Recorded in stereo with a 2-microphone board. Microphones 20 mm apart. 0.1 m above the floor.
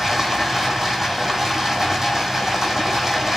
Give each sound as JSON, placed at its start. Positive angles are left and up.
{"t": 0.0, "sound": "running water", "side_deg": -25, "distance_m": 1.4}